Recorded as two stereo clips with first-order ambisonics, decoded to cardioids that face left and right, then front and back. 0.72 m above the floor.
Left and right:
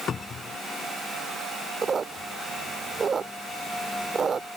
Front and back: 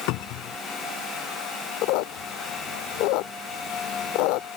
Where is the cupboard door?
25° left.